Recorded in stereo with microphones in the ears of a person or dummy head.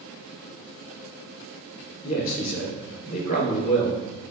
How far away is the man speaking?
About 3 m.